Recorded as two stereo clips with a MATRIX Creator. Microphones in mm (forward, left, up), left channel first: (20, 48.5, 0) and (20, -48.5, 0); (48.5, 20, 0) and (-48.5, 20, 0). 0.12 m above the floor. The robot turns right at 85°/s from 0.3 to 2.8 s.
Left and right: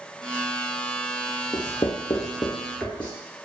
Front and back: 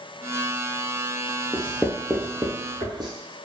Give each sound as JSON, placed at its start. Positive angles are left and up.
{"t": 1.5, "sound": "writing", "azimuth_deg": 55, "distance_m": 0.7}